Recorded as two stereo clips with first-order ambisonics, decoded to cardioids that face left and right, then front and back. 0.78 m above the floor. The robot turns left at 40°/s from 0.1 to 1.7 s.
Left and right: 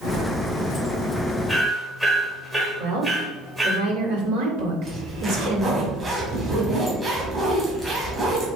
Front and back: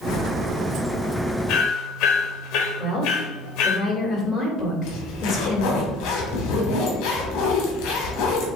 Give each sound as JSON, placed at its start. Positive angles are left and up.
{"t": 1.5, "sound": "hammering", "azimuth_deg": 0, "distance_m": 1.4}
{"t": 2.8, "sound": "a woman speaking", "azimuth_deg": -70, "distance_m": 3.0}
{"t": 4.8, "sound": "a zipper", "azimuth_deg": -15, "distance_m": 2.5}